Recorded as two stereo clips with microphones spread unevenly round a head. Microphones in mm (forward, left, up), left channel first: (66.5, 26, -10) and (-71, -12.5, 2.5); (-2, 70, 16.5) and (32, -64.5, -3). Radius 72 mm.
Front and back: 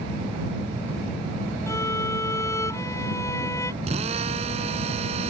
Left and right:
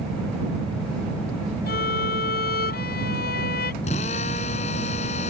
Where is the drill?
150° left.